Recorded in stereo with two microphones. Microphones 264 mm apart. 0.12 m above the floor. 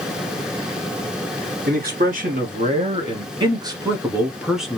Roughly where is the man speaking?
Right.